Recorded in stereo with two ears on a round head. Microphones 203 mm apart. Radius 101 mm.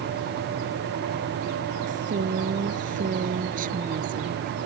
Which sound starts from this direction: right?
A woman speaking, at 1.9 s.